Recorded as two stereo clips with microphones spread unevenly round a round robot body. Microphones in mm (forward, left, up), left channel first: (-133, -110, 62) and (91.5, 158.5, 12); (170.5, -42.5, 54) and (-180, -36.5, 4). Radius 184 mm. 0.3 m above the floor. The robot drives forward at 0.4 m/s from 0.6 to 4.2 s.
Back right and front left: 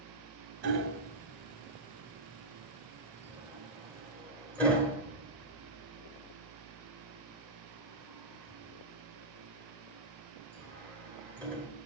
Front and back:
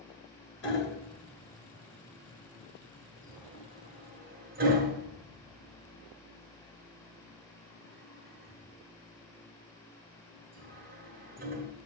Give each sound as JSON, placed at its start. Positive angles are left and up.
{"t": 0.6, "sound": "hammering", "azimuth_deg": 50, "distance_m": 1.5}